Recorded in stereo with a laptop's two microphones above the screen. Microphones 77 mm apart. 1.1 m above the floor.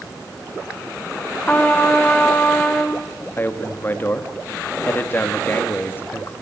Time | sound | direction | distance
1.5 | a trumpet | 20° left (ahead or behind) | 1.5 m
3.4 | a man speaking | 25° left (ahead or behind) | 2 m